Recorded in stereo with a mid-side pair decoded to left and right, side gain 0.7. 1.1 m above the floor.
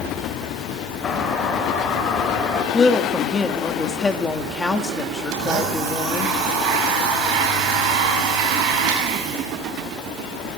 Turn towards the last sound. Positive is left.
turn(degrees=-55)